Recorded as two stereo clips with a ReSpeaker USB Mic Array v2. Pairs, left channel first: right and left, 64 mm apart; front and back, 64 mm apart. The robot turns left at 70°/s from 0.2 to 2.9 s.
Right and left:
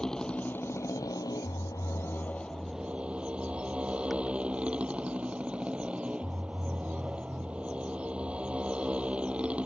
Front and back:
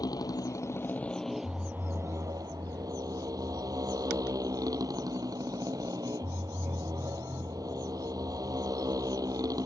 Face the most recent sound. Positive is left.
turn(degrees=160)